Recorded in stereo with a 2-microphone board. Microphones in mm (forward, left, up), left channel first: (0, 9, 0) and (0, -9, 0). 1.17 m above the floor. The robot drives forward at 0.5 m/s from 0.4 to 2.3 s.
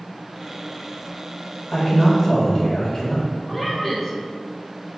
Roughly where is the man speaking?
Left.